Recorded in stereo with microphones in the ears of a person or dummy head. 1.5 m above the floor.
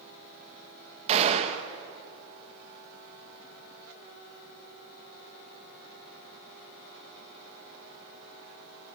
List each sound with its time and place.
1.1 s a gunshot: 35° right (ahead or behind), 1.6 m